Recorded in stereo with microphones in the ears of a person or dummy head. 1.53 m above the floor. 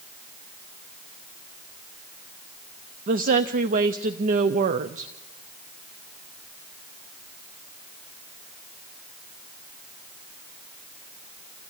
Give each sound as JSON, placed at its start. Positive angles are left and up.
{"t": 3.1, "sound": "a woman speaking", "side_deg": -45, "distance_m": 0.6}